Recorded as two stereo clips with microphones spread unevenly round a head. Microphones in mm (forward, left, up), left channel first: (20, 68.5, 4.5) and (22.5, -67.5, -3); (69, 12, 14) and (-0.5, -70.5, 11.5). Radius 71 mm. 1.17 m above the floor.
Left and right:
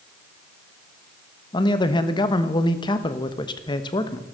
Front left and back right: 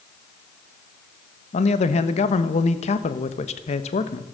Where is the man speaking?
30° left, 1.4 m.